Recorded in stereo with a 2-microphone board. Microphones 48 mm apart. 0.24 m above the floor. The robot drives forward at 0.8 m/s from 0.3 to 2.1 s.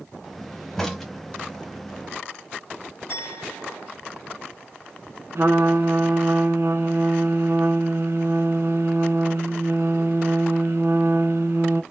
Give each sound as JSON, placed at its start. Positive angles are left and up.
{"t": 0.8, "sound": "a crack", "side_deg": 5, "distance_m": 0.8}
{"t": 3.1, "sound": "a clink", "side_deg": 45, "distance_m": 1.5}
{"t": 5.3, "sound": "a trumpet", "side_deg": -60, "distance_m": 0.9}